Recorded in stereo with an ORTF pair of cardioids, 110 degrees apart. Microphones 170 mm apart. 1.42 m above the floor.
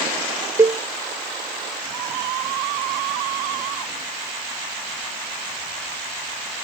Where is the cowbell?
20° right.